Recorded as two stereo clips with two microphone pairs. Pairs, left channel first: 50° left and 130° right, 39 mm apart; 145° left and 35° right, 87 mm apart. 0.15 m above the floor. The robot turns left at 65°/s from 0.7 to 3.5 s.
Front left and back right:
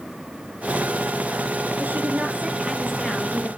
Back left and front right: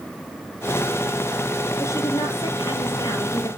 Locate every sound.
1.8 s a woman speaking: 155° right, 3 m; by 3.5 s 95° left, 3 m